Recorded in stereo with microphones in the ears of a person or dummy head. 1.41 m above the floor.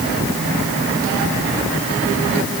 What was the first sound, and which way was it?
Only background noise.